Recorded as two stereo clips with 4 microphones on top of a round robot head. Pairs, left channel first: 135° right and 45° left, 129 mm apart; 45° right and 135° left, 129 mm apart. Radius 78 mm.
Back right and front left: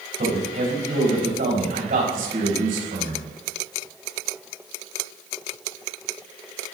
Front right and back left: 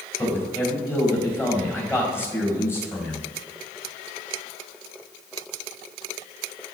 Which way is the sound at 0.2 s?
25° left.